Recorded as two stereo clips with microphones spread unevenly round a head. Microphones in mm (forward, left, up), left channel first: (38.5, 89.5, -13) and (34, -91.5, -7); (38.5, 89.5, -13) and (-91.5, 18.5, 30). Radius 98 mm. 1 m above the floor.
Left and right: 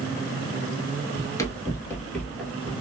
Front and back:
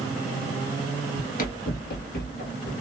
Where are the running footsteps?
35° left, 1.1 m; by 2.7 s straight ahead, 1.7 m.